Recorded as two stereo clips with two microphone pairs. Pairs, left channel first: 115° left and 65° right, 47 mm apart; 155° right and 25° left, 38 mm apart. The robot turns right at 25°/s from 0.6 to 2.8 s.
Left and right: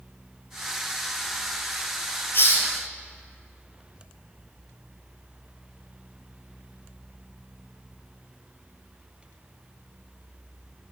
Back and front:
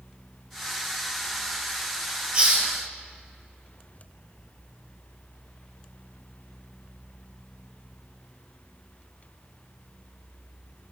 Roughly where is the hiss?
Left.